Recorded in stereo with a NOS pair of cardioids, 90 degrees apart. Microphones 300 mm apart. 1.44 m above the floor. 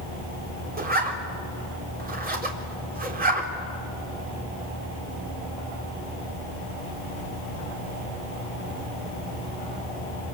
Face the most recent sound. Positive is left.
turn(degrees=-30)